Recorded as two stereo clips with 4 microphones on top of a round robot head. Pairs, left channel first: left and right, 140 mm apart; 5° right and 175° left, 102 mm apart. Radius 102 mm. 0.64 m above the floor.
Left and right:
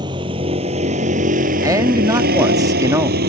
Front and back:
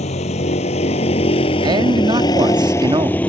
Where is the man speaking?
150° right.